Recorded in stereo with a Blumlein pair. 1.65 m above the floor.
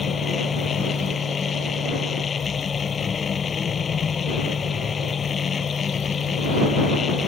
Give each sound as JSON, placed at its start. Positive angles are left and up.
{"t": 0.0, "sound": "a machine running", "azimuth_deg": 20}